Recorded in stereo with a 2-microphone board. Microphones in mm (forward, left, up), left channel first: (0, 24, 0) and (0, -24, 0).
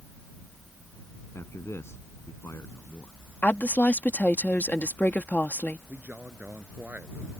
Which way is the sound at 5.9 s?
40° right (ahead or behind).